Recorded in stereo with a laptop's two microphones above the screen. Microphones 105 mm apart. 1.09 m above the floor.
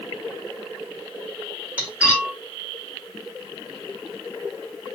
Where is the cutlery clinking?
10° right (ahead or behind), 1.6 m.